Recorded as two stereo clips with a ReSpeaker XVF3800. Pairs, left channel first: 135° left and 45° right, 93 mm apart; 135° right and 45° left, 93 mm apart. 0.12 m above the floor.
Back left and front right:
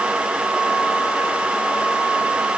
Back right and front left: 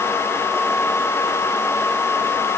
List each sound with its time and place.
Only background noise.